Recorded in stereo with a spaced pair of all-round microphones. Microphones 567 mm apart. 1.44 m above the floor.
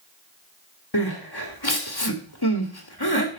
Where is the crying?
45° left (ahead or behind), 1.8 m.